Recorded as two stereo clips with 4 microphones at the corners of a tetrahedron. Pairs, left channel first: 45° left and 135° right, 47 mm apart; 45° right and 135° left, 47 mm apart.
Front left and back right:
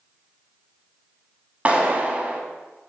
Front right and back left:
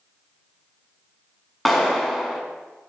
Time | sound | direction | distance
1.6 | a clap | 125° right | 1.0 m